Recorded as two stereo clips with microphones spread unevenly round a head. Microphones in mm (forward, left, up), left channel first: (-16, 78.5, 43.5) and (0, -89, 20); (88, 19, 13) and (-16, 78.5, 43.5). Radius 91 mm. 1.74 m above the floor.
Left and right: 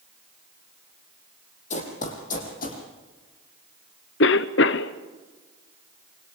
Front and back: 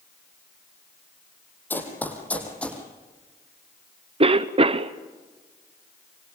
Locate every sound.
1.7 s running footsteps: 50° left, 4.5 m; by 2.8 s 55° left, 5.5 m
4.2 s a cough: 115° left, 1.0 m